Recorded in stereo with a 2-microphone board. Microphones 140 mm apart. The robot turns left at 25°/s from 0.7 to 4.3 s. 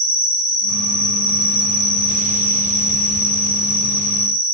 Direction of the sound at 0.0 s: 125° left.